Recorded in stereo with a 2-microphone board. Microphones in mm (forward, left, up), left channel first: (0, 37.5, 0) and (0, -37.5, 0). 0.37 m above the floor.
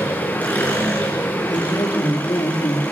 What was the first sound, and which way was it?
An engine running, 20° left (ahead or behind).